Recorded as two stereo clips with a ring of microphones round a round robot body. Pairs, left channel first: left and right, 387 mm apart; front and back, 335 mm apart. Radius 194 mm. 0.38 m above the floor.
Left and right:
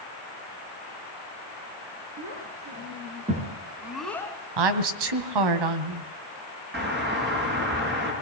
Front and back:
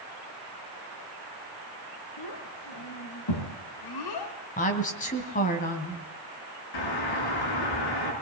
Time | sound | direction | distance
2.2 | a child speaking | 35° right | 4 m
4.6 | a woman speaking | 70° right | 2.5 m
6.7 | a doorbell | 25° right | 8 m